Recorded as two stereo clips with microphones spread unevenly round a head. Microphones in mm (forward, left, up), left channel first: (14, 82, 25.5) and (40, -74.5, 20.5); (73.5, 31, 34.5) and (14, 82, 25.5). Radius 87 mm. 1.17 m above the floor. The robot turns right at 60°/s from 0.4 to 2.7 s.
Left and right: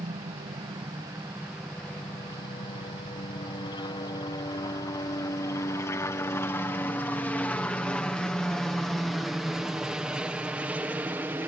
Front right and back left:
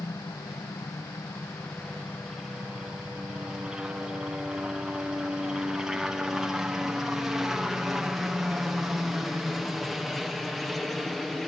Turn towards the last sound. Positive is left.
turn(degrees=-140)